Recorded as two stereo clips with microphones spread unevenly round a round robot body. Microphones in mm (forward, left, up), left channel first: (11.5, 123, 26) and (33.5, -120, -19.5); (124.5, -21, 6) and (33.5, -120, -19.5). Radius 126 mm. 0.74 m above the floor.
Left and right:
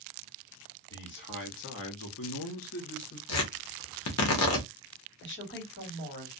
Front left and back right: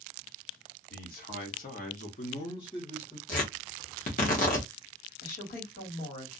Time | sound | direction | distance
0.9 | a man speaking | 45° left | 1.4 m
3.3 | tearing paper | 75° left | 0.9 m
5.2 | a woman speaking | 50° left | 1.5 m